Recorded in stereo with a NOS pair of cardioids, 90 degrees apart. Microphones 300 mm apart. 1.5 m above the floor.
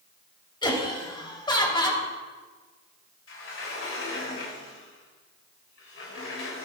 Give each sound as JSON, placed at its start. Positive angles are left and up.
{"t": 0.6, "sound": "laughter", "azimuth_deg": 15, "distance_m": 3.0}
{"t": 3.3, "sound": "a sliding door", "azimuth_deg": 50, "distance_m": 4.0}